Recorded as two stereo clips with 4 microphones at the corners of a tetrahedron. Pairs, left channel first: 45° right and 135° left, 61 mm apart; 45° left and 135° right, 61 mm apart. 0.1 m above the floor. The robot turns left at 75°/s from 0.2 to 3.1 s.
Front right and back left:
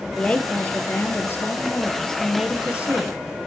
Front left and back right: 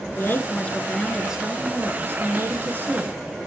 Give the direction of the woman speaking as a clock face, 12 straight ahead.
11 o'clock.